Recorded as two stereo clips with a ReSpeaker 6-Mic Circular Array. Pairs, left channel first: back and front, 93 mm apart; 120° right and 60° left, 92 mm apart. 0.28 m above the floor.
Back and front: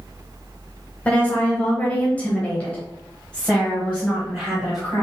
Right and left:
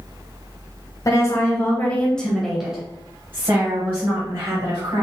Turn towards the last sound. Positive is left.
turn(degrees=100)